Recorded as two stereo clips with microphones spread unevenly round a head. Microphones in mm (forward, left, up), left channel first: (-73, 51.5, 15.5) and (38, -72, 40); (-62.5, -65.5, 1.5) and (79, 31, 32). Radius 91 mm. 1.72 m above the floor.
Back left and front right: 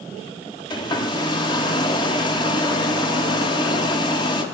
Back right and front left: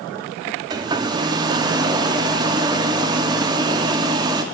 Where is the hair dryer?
65° left, 0.6 m.